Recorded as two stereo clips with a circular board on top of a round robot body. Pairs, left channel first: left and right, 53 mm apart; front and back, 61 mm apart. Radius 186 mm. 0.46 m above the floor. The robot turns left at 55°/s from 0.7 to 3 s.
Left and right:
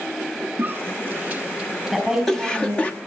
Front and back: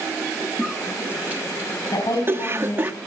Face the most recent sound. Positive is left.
turn(degrees=-60)